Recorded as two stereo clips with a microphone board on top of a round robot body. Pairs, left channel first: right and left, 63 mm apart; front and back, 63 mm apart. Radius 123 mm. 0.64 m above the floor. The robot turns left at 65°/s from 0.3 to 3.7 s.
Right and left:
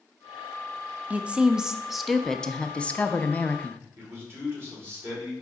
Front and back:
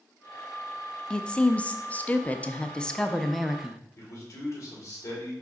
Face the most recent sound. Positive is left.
turn(degrees=40)